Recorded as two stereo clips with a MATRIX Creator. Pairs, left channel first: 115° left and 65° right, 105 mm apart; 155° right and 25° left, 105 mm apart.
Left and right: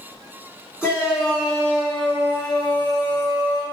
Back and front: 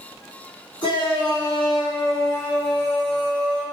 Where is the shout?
145° right, 1.7 m; by 3.6 s 100° left, 1.7 m.